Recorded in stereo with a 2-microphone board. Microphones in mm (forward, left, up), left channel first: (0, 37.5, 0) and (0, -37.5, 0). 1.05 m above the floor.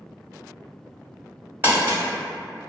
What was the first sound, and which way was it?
Crumpling, 30° right (ahead or behind).